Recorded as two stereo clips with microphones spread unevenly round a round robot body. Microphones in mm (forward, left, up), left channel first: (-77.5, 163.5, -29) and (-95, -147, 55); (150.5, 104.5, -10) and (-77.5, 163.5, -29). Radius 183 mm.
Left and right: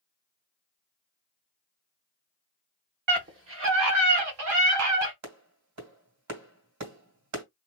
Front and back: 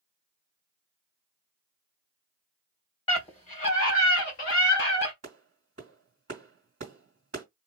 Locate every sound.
3.1 s a scream: 55° right, 1.4 m
5.2 s a clap: 130° right, 2.5 m